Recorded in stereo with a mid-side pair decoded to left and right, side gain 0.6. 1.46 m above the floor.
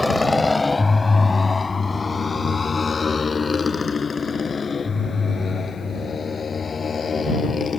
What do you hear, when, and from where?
0.0 s a motorcycle: 15° left; by 7.8 s 30° left